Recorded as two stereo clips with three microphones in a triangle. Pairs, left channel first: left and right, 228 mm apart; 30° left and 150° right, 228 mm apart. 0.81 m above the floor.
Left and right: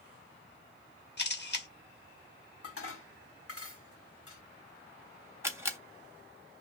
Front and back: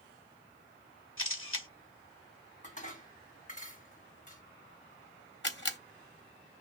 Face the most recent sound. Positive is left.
turn(degrees=-10)